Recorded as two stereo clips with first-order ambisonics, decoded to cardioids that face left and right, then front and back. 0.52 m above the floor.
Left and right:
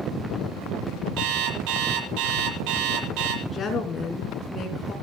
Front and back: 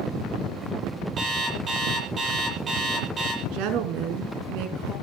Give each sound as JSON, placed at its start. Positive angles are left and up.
{"t": 1.2, "sound": "an alarm clock", "azimuth_deg": -110, "distance_m": 8.5}
{"t": 3.4, "sound": "a woman speaking", "azimuth_deg": 165, "distance_m": 5.0}